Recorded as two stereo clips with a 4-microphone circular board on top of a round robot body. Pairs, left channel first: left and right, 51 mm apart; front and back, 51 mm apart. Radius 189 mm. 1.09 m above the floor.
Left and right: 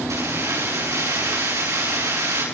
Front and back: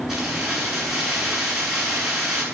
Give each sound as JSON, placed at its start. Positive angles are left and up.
{"t": 0.1, "sound": "keys jangling", "azimuth_deg": -100, "distance_m": 10.0}